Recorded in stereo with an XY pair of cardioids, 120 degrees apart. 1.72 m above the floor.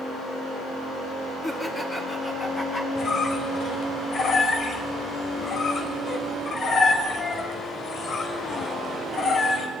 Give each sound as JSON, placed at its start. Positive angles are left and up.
{"t": 1.4, "sound": "laughter", "azimuth_deg": 20, "distance_m": 4.5}
{"t": 3.0, "sound": "a squeak", "azimuth_deg": 45, "distance_m": 5.5}